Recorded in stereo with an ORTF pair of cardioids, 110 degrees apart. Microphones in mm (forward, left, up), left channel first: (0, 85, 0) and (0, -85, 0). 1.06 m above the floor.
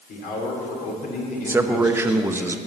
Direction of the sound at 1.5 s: 15° right.